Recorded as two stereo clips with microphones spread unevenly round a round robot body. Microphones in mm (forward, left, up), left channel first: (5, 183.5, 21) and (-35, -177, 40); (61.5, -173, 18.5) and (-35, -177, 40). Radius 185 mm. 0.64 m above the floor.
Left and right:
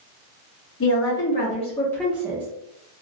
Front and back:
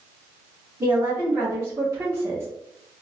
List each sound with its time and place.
0.8 s a woman speaking: 115° left, 1.2 m; by 2.5 s 140° right, 0.8 m